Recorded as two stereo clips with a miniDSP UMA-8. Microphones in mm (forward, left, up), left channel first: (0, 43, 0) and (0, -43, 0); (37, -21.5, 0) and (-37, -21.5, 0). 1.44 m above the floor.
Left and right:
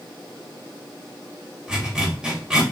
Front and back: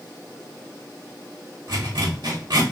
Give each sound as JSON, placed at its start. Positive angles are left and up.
{"t": 1.7, "sound": "a zipper", "azimuth_deg": -170, "distance_m": 3.0}